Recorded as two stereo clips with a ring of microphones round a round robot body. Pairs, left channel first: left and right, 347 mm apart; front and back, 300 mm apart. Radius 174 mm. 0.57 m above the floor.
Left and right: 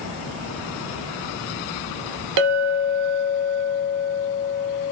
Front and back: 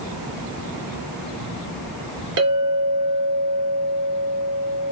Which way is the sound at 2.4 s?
125° right.